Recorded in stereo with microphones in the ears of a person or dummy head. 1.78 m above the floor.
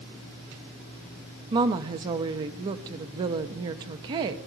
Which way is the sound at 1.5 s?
30° right (ahead or behind).